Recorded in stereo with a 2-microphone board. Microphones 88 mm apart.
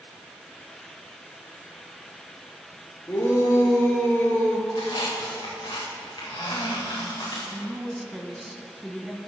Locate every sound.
3.1 s a shout: 35° left (ahead or behind), 3.5 m; by 4.6 s 20° left (ahead or behind), 3 m
4.7 s a squeak: 65° left (ahead or behind), 5 m
7.5 s a woman speaking: 5° right (ahead or behind), 1.0 m